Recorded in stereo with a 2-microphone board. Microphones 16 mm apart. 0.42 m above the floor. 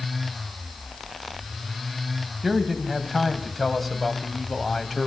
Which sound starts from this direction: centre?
A man speaking, at 2.4 s.